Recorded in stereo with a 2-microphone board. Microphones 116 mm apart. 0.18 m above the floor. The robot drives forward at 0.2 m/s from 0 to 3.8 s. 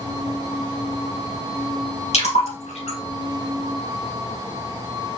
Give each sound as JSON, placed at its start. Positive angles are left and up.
{"t": 2.1, "sound": "a splash", "side_deg": 75, "distance_m": 2.5}